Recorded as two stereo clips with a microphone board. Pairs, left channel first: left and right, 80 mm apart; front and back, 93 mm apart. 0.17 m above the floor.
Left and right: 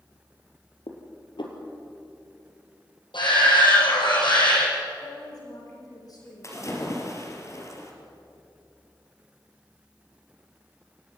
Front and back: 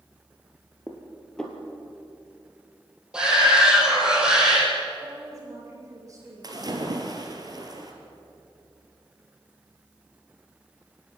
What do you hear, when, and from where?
0.9 s dishes clattering: 85° left, 3 m
3.1 s a shout: 100° left, 7 m
5.0 s a woman speaking: 125° left, 8 m
6.4 s a splash: 140° left, 2.5 m